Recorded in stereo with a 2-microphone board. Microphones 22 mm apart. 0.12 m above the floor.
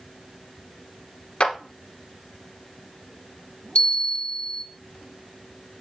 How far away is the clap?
About 1.4 m.